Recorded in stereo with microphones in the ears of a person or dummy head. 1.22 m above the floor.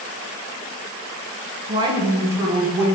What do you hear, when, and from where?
1.7 s a woman speaking: 25° right (ahead or behind), 0.5 m; by 2.9 s 10° right (ahead or behind), 1.4 m